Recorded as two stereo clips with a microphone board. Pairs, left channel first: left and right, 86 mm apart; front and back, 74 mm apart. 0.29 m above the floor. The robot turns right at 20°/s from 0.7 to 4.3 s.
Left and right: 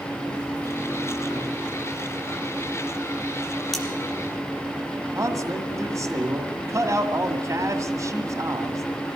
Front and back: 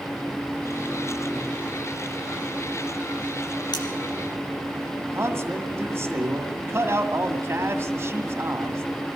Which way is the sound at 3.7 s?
Straight ahead.